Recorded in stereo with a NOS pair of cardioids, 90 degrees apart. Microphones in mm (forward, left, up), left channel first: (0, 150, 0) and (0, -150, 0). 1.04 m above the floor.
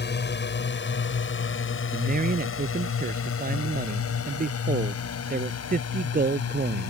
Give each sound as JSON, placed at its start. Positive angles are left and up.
{"t": 0.0, "sound": "a drone", "azimuth_deg": 35}
{"t": 1.9, "sound": "a man speaking", "azimuth_deg": -30}